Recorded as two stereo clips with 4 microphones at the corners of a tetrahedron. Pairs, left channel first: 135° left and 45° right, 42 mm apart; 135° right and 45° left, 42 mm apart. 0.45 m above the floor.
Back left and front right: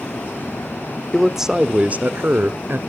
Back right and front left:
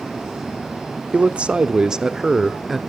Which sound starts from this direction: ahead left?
A man speaking, at 1.1 s.